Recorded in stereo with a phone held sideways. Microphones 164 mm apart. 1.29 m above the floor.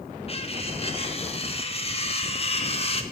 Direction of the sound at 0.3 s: 35° left (ahead or behind).